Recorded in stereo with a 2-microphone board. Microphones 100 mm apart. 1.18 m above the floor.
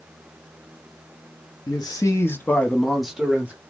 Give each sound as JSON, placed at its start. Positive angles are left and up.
{"t": 1.7, "sound": "a man speaking", "side_deg": 40, "distance_m": 0.6}